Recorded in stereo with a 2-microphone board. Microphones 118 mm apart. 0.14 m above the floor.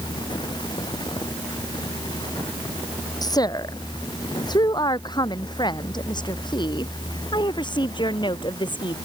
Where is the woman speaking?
35° left (ahead or behind); by 8.9 s 40° left (ahead or behind).